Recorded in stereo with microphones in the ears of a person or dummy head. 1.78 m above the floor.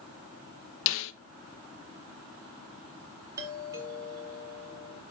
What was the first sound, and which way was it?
A snare drum, 65° left (ahead or behind).